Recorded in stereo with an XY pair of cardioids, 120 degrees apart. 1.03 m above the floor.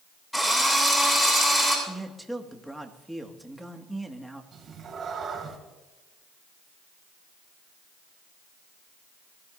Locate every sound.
0.3 s a drill: 5° left, 7 m
1.9 s a man speaking: 5° right, 1.9 m
4.5 s a cat meowing: 40° right, 4 m